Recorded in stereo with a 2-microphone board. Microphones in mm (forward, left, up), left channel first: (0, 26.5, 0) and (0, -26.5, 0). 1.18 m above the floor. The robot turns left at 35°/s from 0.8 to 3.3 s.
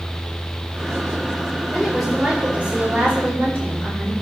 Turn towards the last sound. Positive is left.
turn(degrees=-50)